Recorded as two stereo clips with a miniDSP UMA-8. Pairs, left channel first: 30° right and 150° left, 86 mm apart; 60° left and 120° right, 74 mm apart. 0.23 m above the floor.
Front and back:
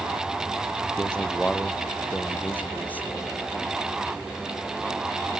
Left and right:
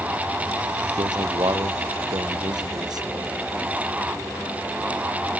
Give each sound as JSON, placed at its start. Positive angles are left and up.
{"t": 1.0, "sound": "a man speaking", "azimuth_deg": -105}